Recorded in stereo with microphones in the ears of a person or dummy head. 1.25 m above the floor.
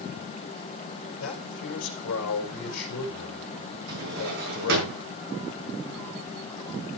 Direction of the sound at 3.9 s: 60° right (ahead or behind).